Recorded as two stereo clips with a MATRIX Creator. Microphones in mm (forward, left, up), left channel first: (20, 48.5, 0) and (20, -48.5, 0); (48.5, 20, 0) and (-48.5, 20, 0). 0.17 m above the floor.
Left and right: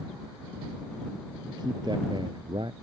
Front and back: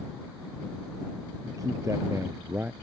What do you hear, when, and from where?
1.4 s a man speaking: 130° right; by 2.7 s 110° right